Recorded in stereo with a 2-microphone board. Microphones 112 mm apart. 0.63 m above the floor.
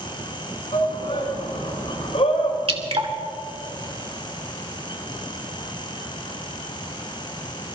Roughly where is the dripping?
Right.